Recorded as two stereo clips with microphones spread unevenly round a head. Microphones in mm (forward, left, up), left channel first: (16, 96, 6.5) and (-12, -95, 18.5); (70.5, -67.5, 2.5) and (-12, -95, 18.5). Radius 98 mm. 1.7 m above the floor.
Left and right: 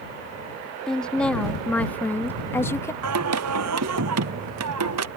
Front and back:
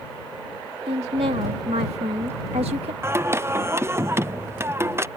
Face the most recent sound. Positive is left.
turn(degrees=-100)